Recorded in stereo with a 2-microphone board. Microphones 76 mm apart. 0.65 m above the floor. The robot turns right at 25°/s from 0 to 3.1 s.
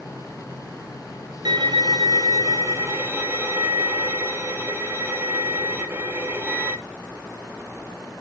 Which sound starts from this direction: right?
A violin, at 1.4 s.